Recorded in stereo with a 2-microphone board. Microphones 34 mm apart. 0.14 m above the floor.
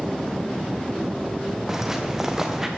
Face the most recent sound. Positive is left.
turn(degrees=-10)  # may be behind; listen again after turning